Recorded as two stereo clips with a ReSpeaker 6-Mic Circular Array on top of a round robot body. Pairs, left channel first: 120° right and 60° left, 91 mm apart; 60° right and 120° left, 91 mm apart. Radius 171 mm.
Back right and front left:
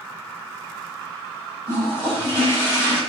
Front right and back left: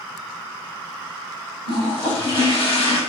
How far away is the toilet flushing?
About 6 m.